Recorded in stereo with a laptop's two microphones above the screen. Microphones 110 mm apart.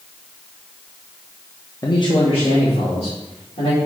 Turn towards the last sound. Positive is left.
turn(degrees=75)  # may be behind; listen again after turning